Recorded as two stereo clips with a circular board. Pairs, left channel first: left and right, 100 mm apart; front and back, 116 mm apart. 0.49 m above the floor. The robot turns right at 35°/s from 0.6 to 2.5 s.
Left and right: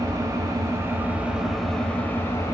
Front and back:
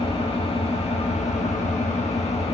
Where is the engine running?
35° right, 0.8 m; by 2.5 s 30° left, 0.8 m.